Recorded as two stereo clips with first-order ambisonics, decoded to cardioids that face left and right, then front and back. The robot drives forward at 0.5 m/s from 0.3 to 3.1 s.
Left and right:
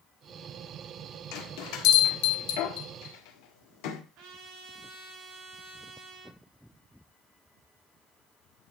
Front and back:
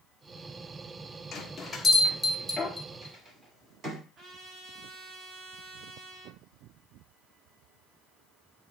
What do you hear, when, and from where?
1.3 s a bell: 70° left, 1.5 m; by 4.0 s 105° left, 1.4 m
4.2 s a trumpet: 125° right, 5 m